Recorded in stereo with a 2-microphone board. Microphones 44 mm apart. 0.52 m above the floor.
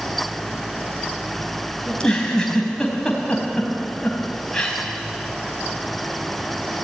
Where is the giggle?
15° left (ahead or behind), 4.5 m.